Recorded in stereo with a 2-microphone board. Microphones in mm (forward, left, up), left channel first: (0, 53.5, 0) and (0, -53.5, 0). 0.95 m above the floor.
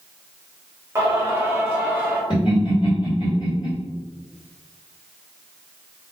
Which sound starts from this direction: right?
Singing, at 0.9 s.